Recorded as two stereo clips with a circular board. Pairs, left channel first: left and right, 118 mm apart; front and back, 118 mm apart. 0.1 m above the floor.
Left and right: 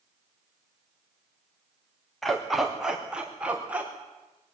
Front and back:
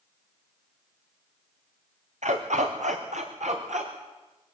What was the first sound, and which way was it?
A dog barking, straight behind.